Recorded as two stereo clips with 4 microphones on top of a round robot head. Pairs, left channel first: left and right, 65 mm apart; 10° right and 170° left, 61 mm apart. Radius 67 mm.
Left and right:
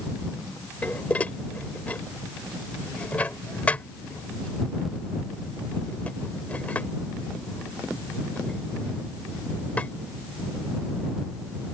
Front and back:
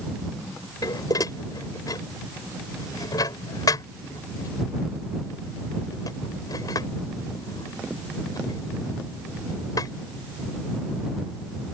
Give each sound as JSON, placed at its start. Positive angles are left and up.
{"t": 0.8, "sound": "dishes clattering", "azimuth_deg": 15}